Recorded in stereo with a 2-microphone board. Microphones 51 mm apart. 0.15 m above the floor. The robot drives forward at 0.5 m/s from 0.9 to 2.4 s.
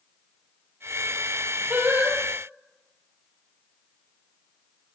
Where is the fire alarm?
No fire alarm in this recording.